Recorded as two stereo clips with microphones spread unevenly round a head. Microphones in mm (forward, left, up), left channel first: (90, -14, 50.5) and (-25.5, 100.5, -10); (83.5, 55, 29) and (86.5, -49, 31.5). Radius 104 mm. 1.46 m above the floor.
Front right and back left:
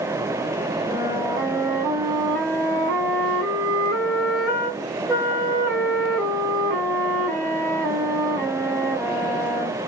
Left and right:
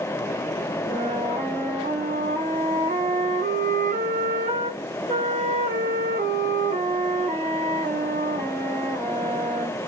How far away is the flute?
About 1.2 m.